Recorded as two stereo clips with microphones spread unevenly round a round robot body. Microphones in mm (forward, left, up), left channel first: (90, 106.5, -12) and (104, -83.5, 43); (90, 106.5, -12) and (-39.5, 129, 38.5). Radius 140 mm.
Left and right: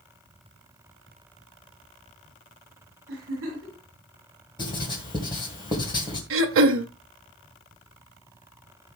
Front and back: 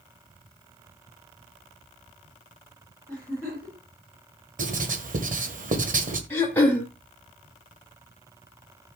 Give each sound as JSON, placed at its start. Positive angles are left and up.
{"t": 3.1, "sound": "a giggle", "azimuth_deg": -105, "distance_m": 6.5}
{"t": 4.6, "sound": "writing", "azimuth_deg": 145, "distance_m": 1.8}
{"t": 6.3, "sound": "throat clearing", "azimuth_deg": -80, "distance_m": 0.9}